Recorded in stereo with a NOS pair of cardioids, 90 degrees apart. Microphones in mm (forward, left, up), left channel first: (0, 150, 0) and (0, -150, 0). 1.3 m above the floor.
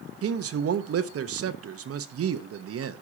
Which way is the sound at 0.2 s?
50° right.